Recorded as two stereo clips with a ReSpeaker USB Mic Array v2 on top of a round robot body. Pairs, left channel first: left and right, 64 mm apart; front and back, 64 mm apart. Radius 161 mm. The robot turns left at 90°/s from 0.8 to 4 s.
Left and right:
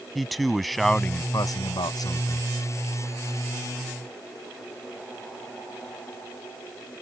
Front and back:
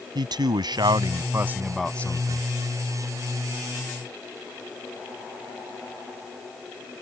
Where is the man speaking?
Straight behind; by 2.4 s 35° left.